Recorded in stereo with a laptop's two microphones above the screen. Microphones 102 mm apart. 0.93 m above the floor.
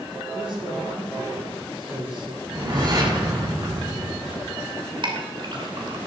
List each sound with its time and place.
0.3 s a man speaking: 60° right (ahead or behind), 9.5 m
2.4 s a whoosh: 45° right (ahead or behind), 6.5 m
5.0 s a clink: 50° right (ahead or behind), 2.5 m